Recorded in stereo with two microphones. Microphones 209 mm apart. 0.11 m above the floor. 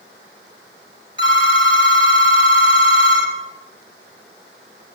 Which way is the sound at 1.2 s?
25° left (ahead or behind).